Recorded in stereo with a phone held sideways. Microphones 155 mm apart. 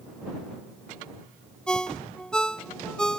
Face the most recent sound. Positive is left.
turn(degrees=5)  # may be behind; listen again after turning